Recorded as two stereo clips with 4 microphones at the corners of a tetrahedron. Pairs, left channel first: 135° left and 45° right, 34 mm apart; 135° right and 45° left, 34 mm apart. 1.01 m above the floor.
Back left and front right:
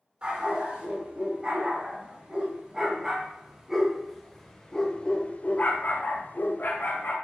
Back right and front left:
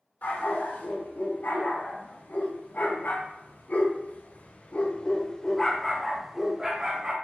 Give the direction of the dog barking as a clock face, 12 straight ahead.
4 o'clock.